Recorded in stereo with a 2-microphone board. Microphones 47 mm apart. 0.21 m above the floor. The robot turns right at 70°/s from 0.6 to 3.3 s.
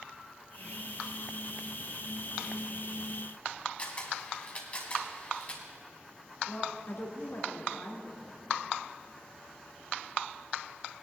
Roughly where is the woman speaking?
Left.